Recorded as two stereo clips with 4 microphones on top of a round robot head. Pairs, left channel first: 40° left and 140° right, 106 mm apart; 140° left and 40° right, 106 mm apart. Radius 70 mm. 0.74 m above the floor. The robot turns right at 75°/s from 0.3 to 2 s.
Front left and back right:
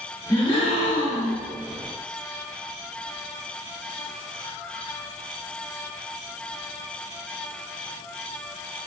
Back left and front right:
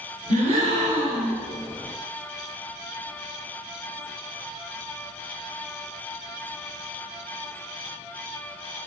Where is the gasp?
25° right, 0.9 m; by 1.4 s 60° left, 0.9 m.